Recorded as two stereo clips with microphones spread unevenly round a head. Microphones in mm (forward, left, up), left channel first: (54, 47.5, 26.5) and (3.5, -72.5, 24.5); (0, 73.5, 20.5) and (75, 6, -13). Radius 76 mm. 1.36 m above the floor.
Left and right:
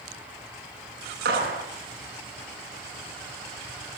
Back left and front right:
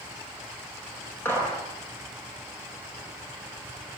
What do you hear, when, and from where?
1.2 s a gunshot: 145° right, 8.5 m